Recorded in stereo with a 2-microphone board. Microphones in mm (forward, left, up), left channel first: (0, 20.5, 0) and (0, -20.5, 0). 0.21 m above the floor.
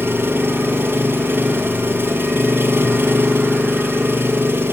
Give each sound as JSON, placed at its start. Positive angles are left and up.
{"t": 0.0, "sound": "an engine running", "side_deg": -65, "distance_m": 3.5}